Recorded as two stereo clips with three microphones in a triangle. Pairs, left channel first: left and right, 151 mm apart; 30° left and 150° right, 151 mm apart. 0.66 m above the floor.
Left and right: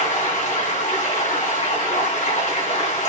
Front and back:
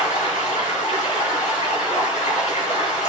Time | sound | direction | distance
0.0 | running water | 60° left | 3 m